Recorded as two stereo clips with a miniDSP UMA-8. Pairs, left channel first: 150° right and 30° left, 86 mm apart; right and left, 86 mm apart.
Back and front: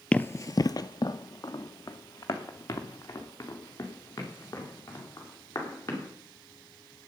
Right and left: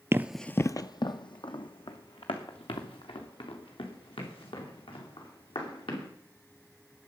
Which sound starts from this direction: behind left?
Running footsteps, at 0.1 s.